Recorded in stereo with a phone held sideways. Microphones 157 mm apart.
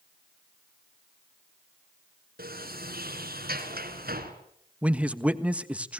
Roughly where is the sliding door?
Right.